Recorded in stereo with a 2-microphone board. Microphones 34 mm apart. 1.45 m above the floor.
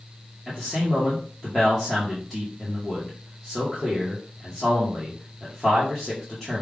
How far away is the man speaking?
About 1.7 m.